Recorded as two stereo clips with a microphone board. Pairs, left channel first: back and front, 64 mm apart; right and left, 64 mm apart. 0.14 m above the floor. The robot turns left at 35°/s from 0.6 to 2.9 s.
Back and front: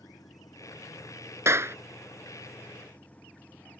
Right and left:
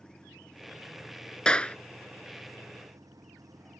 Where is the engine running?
170° right; by 3.8 s 110° left.